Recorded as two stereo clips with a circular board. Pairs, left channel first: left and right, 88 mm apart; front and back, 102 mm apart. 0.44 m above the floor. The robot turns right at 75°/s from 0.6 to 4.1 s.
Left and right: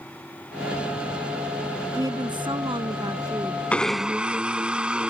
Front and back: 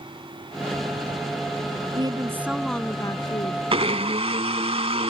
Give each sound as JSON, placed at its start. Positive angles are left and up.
{"t": 1.9, "sound": "a woman speaking", "azimuth_deg": -140}
{"t": 3.7, "sound": "a blender", "azimuth_deg": 165}